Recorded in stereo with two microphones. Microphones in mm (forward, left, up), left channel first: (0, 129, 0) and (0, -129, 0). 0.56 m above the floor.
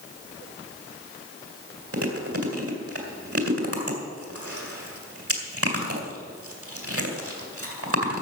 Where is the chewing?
60° right (ahead or behind), 2.5 m.